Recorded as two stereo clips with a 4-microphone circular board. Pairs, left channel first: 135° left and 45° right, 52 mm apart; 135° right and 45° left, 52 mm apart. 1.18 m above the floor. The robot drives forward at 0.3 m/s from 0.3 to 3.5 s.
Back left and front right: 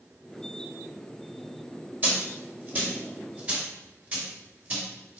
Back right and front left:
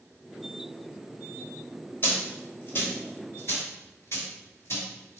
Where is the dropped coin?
95° right, 2.5 m; by 5.2 s 110° right, 2.5 m.